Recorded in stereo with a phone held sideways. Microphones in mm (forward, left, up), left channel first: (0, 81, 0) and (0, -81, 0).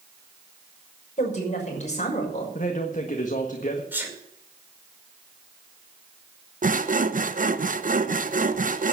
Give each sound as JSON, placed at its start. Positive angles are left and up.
{"t": 1.2, "sound": "a woman speaking", "side_deg": 45, "distance_m": 6.0}
{"t": 2.5, "sound": "a man speaking", "side_deg": 50, "distance_m": 1.5}
{"t": 3.9, "sound": "a sneeze", "side_deg": -10, "distance_m": 5.0}
{"t": 6.6, "sound": "sawing", "side_deg": -55, "distance_m": 0.8}